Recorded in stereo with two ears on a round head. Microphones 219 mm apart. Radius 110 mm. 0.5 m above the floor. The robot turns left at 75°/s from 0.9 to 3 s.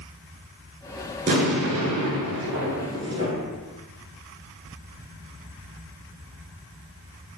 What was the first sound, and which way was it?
An explosion, 30° right.